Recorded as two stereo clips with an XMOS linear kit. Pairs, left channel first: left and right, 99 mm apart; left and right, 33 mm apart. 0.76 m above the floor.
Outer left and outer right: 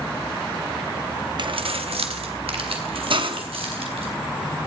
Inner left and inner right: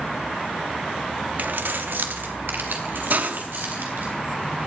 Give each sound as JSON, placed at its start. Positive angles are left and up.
{"t": 1.4, "sound": "keys jangling", "side_deg": -50, "distance_m": 0.7}
{"t": 3.1, "sound": "a hiss", "side_deg": -60, "distance_m": 1.0}